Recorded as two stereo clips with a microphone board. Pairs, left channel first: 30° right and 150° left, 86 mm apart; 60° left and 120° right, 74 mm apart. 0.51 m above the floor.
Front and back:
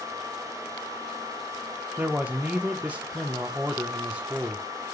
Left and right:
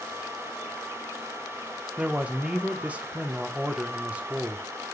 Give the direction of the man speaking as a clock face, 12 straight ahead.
5 o'clock.